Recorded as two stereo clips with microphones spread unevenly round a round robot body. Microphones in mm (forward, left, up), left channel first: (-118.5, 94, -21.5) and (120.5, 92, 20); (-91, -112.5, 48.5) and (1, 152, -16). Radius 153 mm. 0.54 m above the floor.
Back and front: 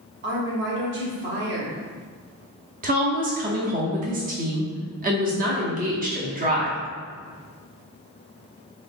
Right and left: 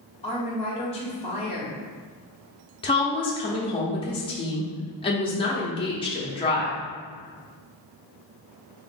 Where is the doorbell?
I don't hear a doorbell.